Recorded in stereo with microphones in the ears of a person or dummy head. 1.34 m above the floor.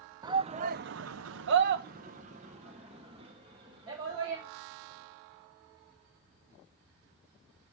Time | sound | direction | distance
0.2 | a shout | 25° right (ahead or behind) | 0.8 m